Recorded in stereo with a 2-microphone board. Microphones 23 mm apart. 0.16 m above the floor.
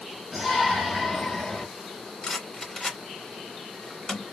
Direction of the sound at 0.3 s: 10° right (ahead or behind).